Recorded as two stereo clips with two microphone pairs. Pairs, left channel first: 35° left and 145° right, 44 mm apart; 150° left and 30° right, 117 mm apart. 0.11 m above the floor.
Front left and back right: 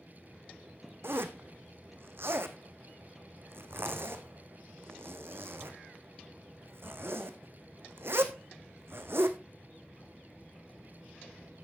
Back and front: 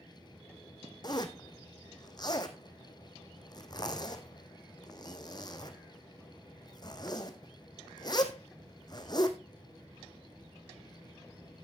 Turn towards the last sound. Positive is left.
turn(degrees=-160)